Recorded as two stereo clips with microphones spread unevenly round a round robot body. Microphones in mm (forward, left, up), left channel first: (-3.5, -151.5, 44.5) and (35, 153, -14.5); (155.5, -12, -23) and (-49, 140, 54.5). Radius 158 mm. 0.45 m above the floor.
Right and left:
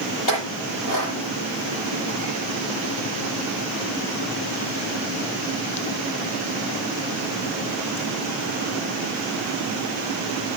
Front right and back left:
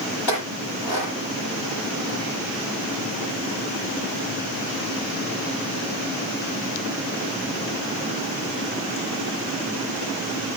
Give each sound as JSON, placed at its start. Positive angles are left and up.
{"t": 0.3, "sound": "a clink", "azimuth_deg": -70, "distance_m": 9.5}